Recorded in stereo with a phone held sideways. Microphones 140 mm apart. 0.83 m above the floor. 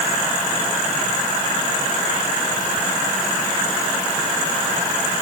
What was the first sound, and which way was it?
Only background noise.